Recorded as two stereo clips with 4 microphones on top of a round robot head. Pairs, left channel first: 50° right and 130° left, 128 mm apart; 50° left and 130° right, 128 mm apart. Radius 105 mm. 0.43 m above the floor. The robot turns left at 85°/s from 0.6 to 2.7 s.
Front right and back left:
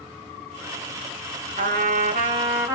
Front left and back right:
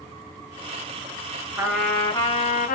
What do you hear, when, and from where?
1.6 s a trumpet: 165° left, 2.0 m; by 2.8 s 65° left, 2.0 m